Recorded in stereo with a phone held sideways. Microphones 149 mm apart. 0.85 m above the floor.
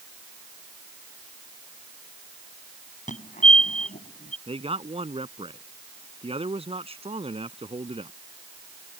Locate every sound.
3.1 s a fire alarm: 55° left (ahead or behind)
4.5 s a man speaking: 40° right (ahead or behind)